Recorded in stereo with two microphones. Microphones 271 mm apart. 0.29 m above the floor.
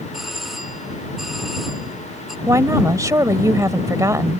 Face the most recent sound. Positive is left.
turn(degrees=-15)  # may be behind; listen again after turning